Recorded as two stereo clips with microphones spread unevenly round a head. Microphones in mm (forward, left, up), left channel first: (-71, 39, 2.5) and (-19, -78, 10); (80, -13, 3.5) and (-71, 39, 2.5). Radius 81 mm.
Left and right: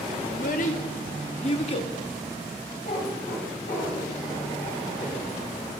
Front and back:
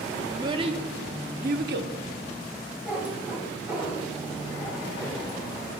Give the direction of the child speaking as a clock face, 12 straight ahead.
9 o'clock.